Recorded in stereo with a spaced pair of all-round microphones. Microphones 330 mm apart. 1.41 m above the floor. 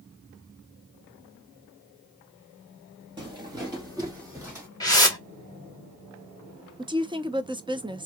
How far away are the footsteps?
About 2 m.